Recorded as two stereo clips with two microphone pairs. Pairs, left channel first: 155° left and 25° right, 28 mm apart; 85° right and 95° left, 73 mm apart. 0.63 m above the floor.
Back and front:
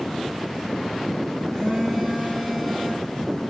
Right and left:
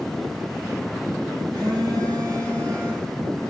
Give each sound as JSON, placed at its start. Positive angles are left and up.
{"t": 1.5, "sound": "a phone buzzing", "azimuth_deg": 80, "distance_m": 9.0}